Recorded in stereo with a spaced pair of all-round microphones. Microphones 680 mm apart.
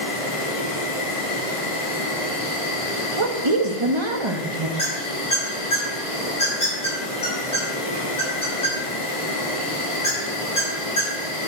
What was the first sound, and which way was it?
An insect, 50° left (ahead or behind).